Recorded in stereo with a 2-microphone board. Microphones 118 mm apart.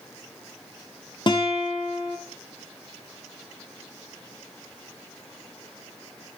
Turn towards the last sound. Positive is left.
turn(degrees=40)  # may be behind; listen again after turning